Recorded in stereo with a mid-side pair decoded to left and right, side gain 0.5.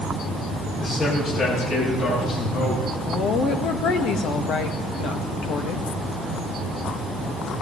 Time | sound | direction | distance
0.8 | a man speaking | 55° left | 9 m
3.1 | a woman speaking | 65° left | 1.7 m